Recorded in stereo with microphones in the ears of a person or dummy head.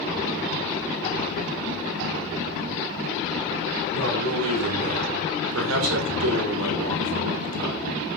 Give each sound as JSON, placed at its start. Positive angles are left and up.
{"t": 3.9, "sound": "a man speaking", "side_deg": -90, "distance_m": 6.5}